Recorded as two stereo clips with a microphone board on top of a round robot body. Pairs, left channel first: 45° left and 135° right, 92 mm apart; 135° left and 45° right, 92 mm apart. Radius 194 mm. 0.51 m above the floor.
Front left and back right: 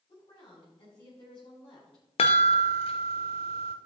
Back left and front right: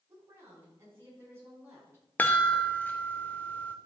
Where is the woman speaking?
15° left, 5.5 m.